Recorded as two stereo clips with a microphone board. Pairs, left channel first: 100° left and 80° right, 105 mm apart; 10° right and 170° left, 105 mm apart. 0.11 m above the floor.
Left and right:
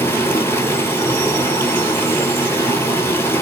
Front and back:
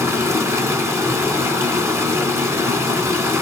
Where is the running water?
140° left, 0.8 m.